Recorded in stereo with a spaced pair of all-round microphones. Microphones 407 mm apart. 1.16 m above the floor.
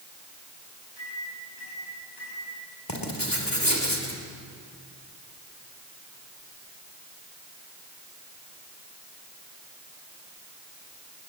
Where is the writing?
55° left (ahead or behind), 3.5 m.